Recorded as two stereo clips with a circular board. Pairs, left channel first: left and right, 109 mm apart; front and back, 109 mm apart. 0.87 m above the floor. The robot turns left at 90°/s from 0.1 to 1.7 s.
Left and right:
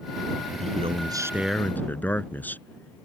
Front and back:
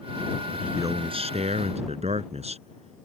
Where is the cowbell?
I don't hear a cowbell.